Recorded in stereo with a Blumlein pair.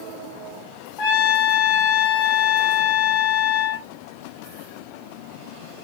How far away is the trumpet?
About 3 m.